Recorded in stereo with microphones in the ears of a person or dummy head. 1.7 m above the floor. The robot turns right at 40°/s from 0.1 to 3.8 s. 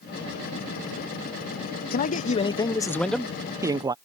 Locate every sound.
1.9 s a man speaking: 125° left; by 3.9 s 160° right